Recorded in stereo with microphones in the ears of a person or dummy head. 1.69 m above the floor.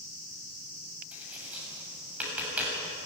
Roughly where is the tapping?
Centre.